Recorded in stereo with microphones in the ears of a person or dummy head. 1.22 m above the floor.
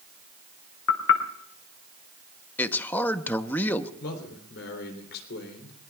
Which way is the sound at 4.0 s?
65° left (ahead or behind).